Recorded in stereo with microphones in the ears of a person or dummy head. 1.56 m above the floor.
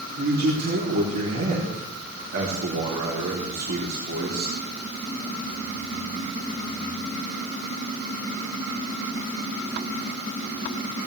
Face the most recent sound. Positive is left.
turn(degrees=-55)  # may be behind; listen again after turning